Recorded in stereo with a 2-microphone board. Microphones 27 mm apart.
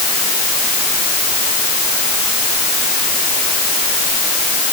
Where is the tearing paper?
No tearing paper in this recording.